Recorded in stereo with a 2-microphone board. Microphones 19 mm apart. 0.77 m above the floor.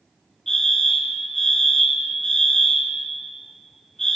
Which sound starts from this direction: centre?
A fire alarm, at 0.5 s.